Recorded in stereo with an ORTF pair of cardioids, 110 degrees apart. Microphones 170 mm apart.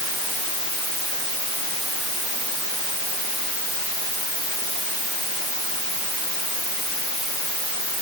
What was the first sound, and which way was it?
Only background noise.